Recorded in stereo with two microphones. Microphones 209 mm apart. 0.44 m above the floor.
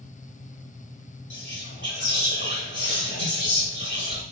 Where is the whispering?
60° left (ahead or behind), 1.6 m.